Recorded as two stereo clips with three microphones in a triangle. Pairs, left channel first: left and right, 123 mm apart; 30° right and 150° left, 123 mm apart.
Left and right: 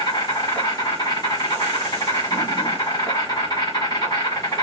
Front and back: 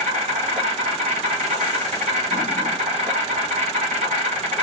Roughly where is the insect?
Behind left.